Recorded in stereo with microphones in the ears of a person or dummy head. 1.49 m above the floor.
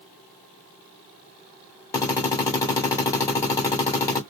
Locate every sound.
1.9 s a drill: 15° left (ahead or behind), 1.5 m